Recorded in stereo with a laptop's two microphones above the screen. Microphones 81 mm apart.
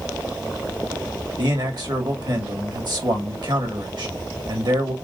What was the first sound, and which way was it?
A man speaking, 60° right (ahead or behind).